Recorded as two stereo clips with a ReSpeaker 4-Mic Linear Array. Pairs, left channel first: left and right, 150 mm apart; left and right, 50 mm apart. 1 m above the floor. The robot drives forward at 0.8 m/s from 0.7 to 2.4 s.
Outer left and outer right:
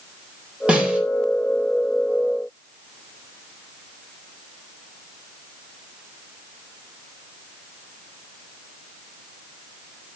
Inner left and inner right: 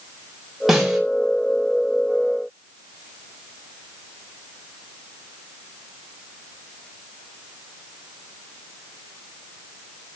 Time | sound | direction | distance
0.7 | a snare drum | 10° right (ahead or behind) | 4 m